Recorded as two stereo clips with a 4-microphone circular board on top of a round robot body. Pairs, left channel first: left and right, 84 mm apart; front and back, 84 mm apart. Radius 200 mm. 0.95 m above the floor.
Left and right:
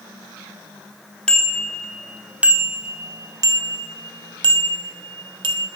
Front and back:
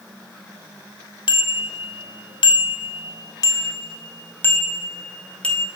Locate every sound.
1.3 s a bicycle bell: 10° left, 2.5 m; by 5.7 s 80° right, 4 m